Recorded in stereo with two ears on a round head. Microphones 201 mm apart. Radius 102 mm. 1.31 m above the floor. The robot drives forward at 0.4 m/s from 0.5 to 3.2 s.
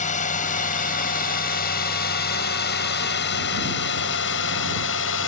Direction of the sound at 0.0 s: 35° left (ahead or behind).